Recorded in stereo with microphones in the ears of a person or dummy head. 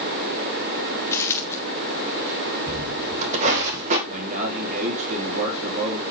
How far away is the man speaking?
About 2.5 m.